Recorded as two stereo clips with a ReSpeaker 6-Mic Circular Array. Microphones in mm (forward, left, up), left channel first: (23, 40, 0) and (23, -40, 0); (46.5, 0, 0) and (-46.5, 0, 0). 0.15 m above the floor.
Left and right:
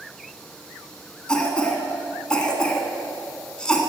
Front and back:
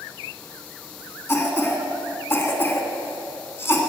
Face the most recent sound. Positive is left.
turn(degrees=25)